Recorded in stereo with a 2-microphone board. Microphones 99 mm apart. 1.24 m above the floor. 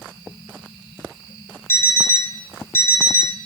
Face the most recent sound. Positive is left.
turn(degrees=25)  # may be behind; listen again after turning